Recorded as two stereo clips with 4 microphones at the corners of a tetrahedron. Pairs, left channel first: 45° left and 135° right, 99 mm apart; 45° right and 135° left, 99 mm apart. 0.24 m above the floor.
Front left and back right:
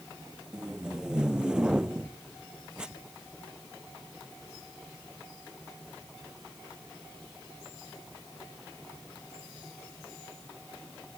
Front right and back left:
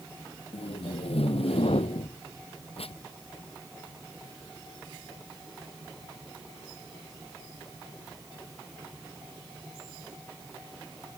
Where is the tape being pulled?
55° right.